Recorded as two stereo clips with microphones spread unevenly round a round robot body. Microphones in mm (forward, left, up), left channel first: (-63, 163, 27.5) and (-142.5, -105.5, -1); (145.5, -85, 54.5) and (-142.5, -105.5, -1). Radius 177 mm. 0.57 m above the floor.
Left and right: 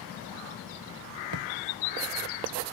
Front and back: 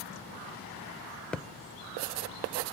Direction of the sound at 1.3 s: 85° right.